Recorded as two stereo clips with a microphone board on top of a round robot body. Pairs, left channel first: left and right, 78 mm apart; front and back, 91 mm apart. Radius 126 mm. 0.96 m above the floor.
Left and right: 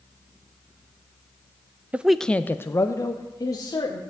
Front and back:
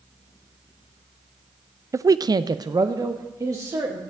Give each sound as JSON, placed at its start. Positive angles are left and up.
{"t": 1.9, "sound": "a man speaking", "azimuth_deg": -150, "distance_m": 0.5}